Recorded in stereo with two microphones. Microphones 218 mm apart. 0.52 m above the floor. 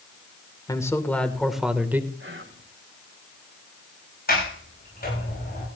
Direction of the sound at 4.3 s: 45° left (ahead or behind).